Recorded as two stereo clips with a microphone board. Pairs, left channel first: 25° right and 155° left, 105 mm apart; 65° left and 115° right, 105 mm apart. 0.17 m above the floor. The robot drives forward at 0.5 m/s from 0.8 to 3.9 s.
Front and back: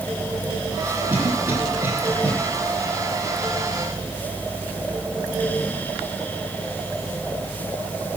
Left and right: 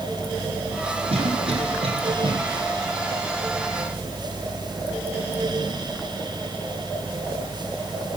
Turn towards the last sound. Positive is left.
turn(degrees=-140)